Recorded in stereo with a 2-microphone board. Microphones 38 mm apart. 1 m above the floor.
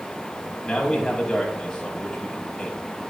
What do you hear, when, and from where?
0.6 s a man speaking: 10° left (ahead or behind), 5.5 m